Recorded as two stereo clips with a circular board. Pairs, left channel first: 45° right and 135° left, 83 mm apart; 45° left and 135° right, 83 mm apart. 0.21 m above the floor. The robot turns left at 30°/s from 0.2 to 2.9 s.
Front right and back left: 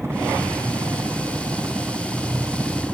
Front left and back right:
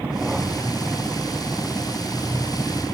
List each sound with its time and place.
0.0 s a helicopter: 160° left; by 2.9 s 60° left